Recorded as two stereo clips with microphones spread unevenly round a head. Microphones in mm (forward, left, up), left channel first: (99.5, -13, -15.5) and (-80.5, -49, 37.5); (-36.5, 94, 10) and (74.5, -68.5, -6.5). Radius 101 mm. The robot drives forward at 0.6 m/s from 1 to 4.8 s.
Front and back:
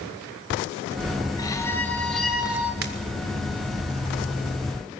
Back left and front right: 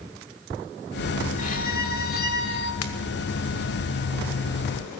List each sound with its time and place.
1.4 s a violin: 95° left, 1.7 m; by 2.7 s 125° left, 1.9 m
2.8 s a pop: 145° left, 1.6 m